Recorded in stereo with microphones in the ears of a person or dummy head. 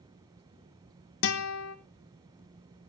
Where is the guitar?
65° left (ahead or behind), 0.9 m.